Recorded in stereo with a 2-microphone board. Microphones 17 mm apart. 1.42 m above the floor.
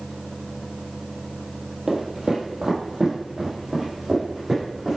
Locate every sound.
1.9 s footsteps: 35° right (ahead or behind), 1.8 m; by 5.0 s 25° right (ahead or behind), 4 m